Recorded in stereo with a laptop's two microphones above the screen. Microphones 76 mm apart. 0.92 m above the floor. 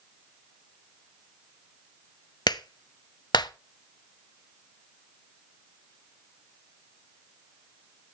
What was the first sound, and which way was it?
A clap, 70° left (ahead or behind).